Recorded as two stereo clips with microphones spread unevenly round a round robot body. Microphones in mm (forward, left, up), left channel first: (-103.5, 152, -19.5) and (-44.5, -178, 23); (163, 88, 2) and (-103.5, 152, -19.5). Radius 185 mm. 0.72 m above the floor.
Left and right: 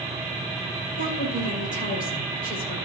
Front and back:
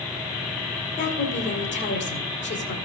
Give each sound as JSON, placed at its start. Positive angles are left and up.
{"t": 1.0, "sound": "a woman speaking", "azimuth_deg": 35, "distance_m": 2.5}